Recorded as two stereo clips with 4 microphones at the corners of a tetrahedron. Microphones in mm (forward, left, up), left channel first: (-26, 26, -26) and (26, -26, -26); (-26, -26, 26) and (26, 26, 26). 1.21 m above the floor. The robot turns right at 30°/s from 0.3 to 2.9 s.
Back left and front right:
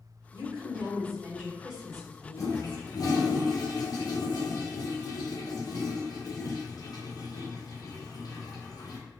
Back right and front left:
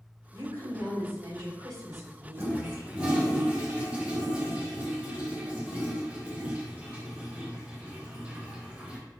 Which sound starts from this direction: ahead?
A woman speaking, at 0.3 s.